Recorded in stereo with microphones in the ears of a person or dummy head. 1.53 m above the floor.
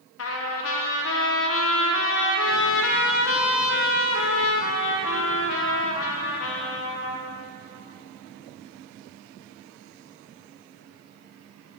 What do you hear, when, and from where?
0.2 s a trumpet: 75° left (ahead or behind), 0.5 m